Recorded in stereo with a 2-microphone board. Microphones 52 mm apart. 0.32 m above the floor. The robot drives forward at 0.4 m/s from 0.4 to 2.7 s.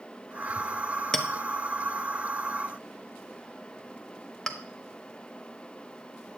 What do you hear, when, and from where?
1.1 s a clink: 10° left (ahead or behind), 0.7 m